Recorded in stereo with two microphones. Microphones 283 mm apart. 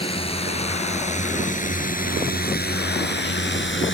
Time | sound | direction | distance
0.0 | a drone | 20° left (ahead or behind) | ?